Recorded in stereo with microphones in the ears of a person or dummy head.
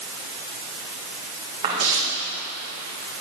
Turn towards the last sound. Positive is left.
turn(degrees=-40)  # may be behind; listen again after turning